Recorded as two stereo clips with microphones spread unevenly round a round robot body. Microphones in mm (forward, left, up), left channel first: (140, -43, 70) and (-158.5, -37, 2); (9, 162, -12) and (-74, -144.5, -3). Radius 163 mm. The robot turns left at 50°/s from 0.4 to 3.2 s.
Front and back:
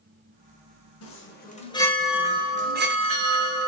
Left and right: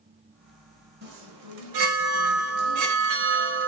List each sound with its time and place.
1.0 s a chime: 45° right, 1.2 m; by 3.7 s 155° right, 1.2 m